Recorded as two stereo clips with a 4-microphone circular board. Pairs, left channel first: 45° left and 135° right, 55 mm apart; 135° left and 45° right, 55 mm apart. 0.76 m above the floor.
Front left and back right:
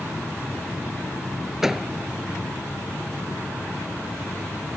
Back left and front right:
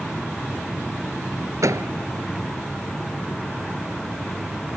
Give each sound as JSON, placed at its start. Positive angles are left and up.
{"t": 1.6, "sound": "a door slam", "azimuth_deg": -50}